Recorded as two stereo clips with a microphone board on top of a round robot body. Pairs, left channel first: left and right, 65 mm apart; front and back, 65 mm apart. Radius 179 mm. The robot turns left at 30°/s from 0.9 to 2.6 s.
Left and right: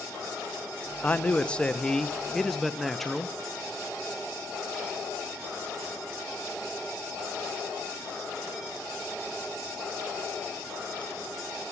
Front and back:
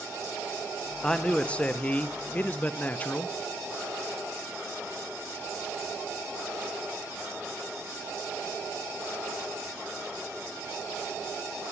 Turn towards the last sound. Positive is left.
turn(degrees=5)